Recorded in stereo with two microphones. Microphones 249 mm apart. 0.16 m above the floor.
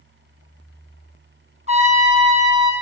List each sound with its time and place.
1.7 s a trumpet: 25° right (ahead or behind), 1.7 m